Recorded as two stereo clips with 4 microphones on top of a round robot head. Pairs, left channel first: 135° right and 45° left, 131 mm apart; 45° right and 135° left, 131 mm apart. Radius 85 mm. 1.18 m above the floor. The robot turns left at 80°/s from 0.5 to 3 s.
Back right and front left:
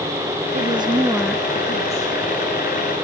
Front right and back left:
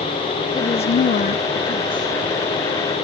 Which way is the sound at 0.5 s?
10° left.